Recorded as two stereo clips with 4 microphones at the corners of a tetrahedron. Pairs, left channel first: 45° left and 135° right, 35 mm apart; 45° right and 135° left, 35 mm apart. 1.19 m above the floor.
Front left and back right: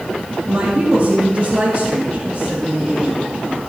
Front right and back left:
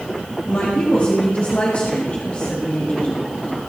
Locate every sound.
0.5 s a woman speaking: 90° right, 1.9 m